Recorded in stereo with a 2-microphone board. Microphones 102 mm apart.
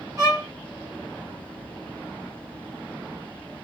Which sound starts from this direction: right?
A violin, at 0.2 s.